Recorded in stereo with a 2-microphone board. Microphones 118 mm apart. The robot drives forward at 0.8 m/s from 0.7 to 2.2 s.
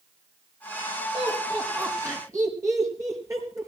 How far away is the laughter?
About 5 m.